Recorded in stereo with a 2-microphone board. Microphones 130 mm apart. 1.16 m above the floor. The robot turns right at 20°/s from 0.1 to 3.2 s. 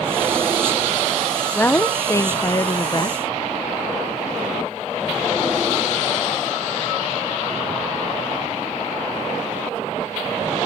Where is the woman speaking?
20° left; by 3.2 s 55° left.